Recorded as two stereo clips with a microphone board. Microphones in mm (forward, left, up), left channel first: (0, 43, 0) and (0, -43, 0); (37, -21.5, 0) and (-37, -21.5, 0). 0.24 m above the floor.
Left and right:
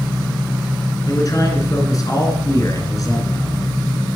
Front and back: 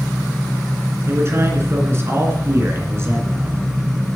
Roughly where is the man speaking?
Behind left.